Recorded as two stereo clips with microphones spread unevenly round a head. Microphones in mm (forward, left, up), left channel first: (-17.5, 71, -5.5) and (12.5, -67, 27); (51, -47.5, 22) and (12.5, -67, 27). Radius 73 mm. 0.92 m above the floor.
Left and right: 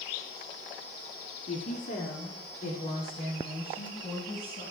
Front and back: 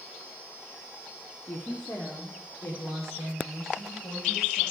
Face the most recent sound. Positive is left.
turn(degrees=55)